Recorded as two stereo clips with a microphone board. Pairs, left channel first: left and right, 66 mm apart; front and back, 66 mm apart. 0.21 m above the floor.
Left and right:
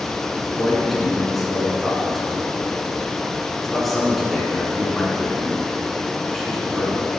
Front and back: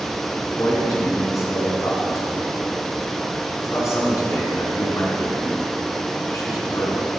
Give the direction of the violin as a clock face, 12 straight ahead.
No violin in this recording.